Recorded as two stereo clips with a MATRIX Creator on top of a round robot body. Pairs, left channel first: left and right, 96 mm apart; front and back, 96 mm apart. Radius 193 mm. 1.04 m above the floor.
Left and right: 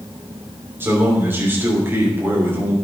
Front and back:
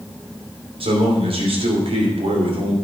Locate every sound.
0.8 s a man speaking: 160° right, 3 m